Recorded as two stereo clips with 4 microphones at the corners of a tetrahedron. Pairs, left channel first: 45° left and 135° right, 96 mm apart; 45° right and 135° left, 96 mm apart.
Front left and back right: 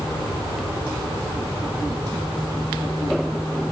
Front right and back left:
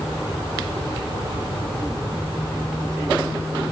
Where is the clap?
No clap in this recording.